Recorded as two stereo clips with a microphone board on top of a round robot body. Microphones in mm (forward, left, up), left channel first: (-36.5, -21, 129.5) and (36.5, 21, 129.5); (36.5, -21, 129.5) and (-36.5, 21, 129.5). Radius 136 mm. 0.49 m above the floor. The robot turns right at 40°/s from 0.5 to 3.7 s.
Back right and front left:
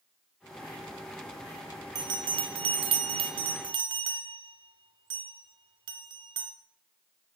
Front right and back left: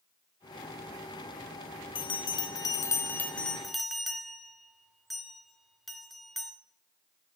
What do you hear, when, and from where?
1.9 s a bell: 10° right, 0.5 m; by 6.5 s 60° left, 0.5 m